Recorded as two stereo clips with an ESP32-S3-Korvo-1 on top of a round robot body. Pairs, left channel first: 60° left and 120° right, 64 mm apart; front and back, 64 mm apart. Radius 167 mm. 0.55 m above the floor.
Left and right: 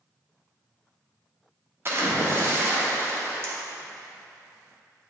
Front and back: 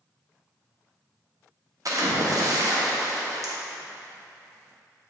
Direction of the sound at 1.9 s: 165° right.